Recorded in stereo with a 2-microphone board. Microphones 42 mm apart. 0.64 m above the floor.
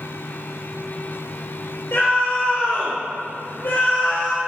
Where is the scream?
65° left (ahead or behind), 2.5 m.